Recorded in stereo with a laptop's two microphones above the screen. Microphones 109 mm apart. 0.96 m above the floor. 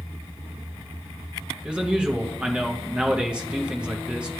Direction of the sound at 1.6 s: 10° right (ahead or behind).